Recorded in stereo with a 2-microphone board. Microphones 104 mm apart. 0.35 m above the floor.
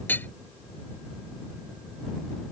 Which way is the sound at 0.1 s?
20° left (ahead or behind).